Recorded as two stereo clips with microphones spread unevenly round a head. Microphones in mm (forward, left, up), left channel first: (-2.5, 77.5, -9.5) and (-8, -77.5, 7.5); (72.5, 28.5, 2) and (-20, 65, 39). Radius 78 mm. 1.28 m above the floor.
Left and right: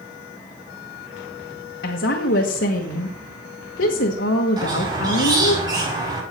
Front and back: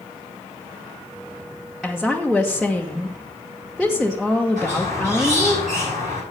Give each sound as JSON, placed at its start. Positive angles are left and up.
{"t": 1.8, "sound": "a woman speaking", "azimuth_deg": 70, "distance_m": 1.2}
{"t": 4.6, "sound": "a squeak", "azimuth_deg": -160, "distance_m": 6.0}